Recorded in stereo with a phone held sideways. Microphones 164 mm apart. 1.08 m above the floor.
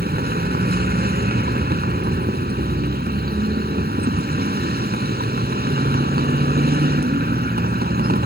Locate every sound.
0.0 s a vehicle: 75° right (ahead or behind)